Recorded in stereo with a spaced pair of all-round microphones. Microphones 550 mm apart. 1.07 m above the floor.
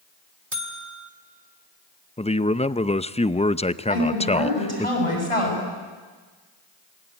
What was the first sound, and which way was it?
A buzzer, 70° right (ahead or behind).